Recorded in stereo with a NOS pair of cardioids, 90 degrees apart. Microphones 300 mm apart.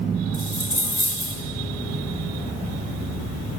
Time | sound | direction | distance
0.3 | a dropped coin | 15° right | 1.7 m